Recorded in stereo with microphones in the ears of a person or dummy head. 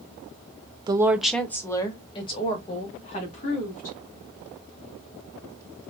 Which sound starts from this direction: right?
A woman speaking, at 0.9 s.